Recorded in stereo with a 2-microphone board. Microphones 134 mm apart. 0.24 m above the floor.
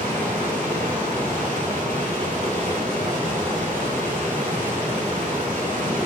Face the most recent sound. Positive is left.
turn(degrees=-80)